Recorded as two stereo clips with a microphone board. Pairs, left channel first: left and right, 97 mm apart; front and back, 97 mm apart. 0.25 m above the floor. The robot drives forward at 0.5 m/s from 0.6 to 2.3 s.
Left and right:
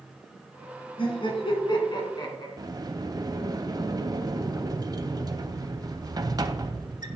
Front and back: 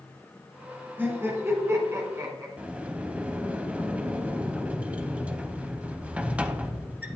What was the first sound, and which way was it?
Laughter, 110° left.